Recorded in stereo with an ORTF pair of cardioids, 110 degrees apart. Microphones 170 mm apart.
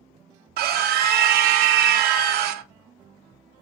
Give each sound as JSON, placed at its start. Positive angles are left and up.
{"t": 0.6, "sound": "a scream", "azimuth_deg": -70, "distance_m": 0.5}